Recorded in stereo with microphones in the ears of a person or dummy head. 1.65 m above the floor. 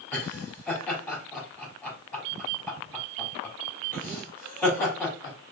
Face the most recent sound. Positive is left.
turn(degrees=15)  # may be behind; listen again after turning